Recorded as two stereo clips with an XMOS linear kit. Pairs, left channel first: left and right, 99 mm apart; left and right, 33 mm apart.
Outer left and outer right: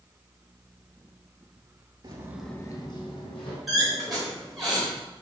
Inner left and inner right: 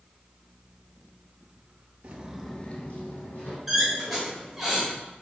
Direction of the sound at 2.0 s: 45° right (ahead or behind).